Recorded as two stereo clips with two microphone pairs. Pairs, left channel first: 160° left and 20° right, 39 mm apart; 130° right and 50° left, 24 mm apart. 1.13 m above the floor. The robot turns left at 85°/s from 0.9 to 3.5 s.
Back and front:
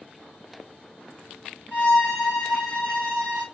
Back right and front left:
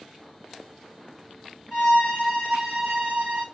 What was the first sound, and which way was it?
A violin, 150° right.